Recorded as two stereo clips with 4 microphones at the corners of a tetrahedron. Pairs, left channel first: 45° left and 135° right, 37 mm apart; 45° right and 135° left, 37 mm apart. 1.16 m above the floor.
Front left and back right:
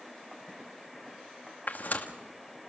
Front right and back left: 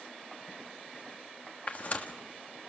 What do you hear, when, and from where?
1.7 s tearing paper: 5° left, 1.8 m